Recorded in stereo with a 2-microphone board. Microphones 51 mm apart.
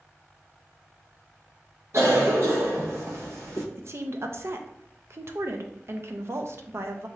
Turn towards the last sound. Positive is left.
turn(degrees=-55)  # may be behind; listen again after turning